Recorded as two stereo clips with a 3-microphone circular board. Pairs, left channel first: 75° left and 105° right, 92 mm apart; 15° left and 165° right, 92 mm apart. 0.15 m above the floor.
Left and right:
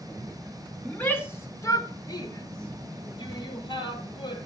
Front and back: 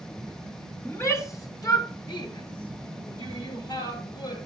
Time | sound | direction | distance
0.8 | a shout | 20° left | 1.4 m